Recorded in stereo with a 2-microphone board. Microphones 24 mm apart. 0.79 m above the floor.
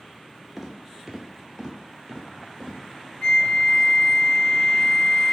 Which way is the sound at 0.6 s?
10° right (ahead or behind).